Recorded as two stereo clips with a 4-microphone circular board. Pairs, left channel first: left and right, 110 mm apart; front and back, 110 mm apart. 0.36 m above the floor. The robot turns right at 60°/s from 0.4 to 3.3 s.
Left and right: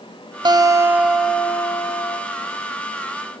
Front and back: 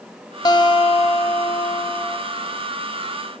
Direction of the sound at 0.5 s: 50° right.